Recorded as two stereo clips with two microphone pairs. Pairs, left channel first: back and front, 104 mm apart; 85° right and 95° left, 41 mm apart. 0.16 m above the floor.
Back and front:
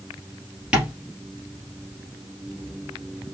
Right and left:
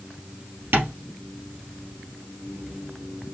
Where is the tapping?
80° left, 3 m.